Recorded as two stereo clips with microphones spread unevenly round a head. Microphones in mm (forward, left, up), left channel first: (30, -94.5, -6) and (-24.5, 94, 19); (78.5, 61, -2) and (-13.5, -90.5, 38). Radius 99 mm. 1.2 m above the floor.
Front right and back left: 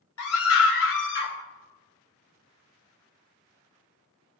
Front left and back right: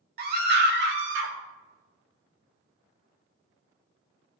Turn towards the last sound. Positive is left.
turn(degrees=-110)